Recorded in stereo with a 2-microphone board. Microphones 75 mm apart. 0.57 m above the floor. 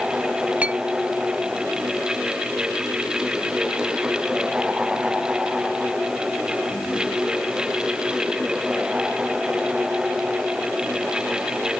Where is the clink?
20° right (ahead or behind).